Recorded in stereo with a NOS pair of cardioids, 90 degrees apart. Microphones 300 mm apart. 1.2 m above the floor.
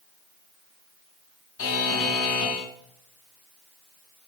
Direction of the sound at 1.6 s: 50° left.